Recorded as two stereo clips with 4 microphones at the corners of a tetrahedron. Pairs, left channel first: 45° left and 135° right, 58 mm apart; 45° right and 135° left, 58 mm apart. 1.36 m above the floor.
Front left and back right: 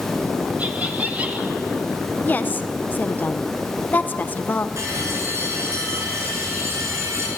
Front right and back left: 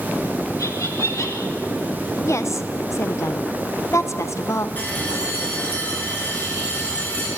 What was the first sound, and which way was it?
Laughter, 75° right.